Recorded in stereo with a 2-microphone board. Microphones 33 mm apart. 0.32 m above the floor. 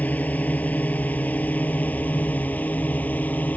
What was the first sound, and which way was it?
A drone, 50° left (ahead or behind).